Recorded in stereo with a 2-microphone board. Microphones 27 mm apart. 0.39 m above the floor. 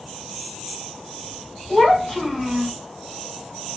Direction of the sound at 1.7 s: 15° left (ahead or behind).